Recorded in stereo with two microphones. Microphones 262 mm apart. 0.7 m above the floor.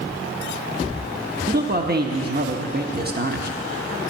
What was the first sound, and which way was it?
A man speaking, 35° right (ahead or behind).